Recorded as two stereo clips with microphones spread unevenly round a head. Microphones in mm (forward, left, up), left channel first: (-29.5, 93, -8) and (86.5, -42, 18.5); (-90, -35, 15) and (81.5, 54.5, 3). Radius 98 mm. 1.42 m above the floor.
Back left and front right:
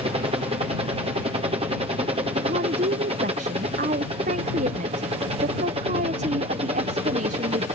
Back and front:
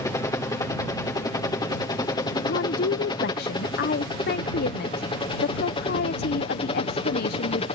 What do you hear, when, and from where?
0.0 s a helicopter: 90° right; by 7.8 s 105° right
2.4 s a woman speaking: 105° right